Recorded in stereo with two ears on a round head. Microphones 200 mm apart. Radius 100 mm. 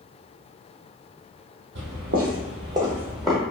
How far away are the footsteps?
About 0.9 m.